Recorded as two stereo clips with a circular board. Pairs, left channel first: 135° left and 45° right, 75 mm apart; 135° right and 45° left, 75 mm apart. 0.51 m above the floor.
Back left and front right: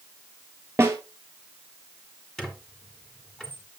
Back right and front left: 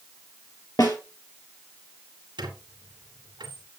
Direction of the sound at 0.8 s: 105° right.